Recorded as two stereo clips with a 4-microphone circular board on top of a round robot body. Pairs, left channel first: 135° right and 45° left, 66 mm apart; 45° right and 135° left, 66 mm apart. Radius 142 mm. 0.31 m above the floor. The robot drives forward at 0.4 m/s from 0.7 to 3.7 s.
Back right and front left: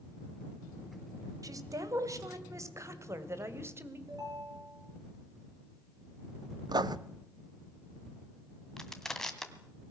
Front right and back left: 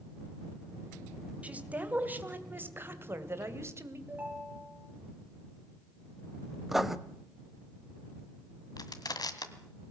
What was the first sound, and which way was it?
A woman speaking, 70° left.